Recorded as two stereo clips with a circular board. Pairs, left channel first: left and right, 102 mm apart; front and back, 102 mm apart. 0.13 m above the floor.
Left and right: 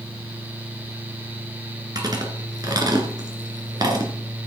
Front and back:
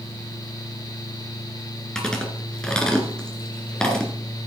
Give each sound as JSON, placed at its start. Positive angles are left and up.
{"t": 1.9, "sound": "chewing", "azimuth_deg": -80, "distance_m": 2.0}